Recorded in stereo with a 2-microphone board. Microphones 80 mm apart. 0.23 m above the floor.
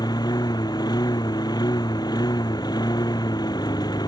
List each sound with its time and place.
0.0 s a lawn mower: 60° left (ahead or behind)